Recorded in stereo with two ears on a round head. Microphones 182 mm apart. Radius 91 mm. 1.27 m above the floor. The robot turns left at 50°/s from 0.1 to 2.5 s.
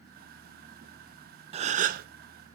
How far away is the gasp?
About 0.6 m.